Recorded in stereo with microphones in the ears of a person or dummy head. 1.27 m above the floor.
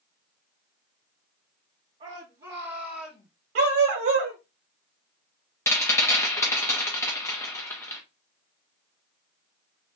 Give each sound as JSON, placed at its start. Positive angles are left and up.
{"t": 2.0, "sound": "a shout", "side_deg": -40, "distance_m": 2.0}
{"t": 3.5, "sound": "a dog barking", "side_deg": -60, "distance_m": 1.8}
{"t": 5.7, "sound": "a rattle", "side_deg": 15, "distance_m": 0.9}